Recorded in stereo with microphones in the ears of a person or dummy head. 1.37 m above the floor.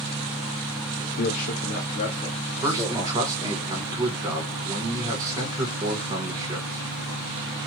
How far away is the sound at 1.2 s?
About 0.6 m.